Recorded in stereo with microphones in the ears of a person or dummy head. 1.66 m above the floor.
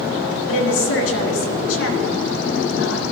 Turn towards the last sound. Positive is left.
turn(degrees=80)